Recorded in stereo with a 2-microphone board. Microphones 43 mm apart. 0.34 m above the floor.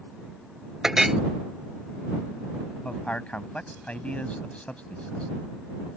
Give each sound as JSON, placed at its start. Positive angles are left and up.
{"t": 0.8, "sound": "a clink", "side_deg": -10}
{"t": 2.9, "sound": "a man speaking", "side_deg": 35}